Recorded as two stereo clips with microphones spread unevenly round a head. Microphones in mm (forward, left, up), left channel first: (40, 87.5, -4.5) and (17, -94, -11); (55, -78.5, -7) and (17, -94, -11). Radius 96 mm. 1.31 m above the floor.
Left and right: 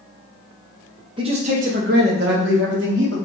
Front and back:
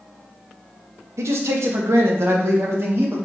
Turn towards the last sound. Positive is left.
turn(degrees=-130)